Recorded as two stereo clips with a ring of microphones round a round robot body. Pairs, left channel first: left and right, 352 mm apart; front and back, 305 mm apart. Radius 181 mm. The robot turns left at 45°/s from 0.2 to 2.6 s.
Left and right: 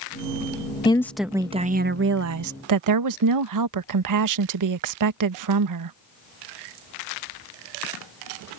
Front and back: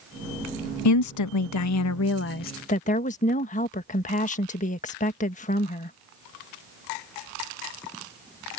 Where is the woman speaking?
15° left; by 6.0 s 65° right.